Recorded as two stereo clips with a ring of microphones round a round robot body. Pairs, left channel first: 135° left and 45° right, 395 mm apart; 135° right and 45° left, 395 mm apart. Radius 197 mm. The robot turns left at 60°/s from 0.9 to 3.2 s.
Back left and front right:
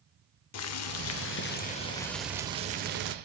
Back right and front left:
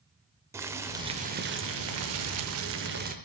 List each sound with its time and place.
0.5 s boiling: 125° left, 0.5 m; by 3.1 s 10° right, 0.5 m